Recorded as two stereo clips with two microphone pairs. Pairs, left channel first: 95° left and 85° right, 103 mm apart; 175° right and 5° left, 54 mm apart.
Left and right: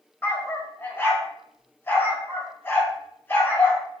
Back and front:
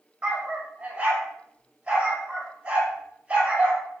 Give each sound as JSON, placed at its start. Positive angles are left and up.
{"t": 0.2, "sound": "a dog barking", "azimuth_deg": 50, "distance_m": 1.3}